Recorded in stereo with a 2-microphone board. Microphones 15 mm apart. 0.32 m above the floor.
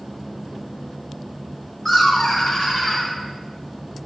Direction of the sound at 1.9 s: 20° left (ahead or behind).